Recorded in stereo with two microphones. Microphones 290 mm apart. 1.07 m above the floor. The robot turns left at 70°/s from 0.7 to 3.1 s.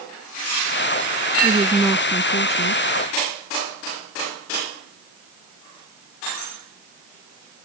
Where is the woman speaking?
150° right; by 2.9 s 105° left.